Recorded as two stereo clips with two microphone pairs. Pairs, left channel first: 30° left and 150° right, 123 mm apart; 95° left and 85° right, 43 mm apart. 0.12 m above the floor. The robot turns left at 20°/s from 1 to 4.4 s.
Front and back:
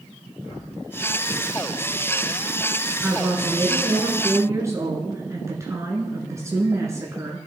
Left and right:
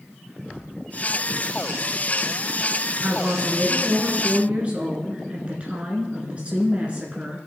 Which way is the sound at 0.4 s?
25° left.